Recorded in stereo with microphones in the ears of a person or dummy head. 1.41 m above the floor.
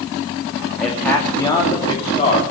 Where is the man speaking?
5° left (ahead or behind), 2 m; by 2.4 s 35° left (ahead or behind), 3 m.